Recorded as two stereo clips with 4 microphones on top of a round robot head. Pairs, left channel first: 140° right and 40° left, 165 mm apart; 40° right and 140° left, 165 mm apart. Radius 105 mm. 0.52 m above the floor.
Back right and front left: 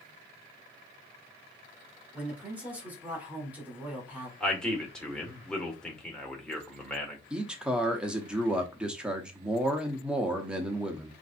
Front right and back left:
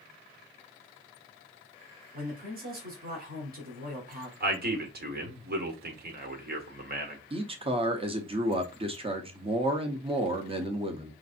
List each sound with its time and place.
2.1 s a man speaking: 125° left, 1.9 m
4.4 s a man speaking: 140° left, 1.5 m
7.3 s a man speaking: 125° left, 0.9 m